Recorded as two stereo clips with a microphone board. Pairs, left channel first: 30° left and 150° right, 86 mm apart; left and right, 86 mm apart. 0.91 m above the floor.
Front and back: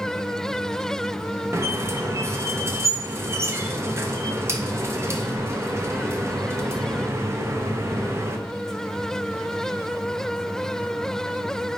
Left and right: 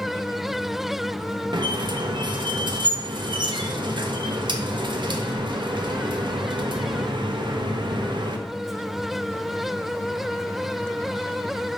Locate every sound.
1.5 s a squeak: 95° right, 0.5 m